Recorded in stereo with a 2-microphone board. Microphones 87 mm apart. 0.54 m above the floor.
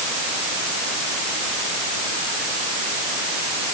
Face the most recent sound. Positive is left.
No sound to turn to.